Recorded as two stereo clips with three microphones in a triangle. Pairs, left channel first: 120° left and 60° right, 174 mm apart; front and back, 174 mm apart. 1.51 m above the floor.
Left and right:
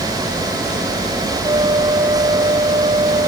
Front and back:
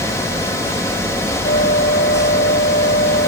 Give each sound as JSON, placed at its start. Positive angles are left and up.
{"t": 1.4, "sound": "a flute", "azimuth_deg": -5}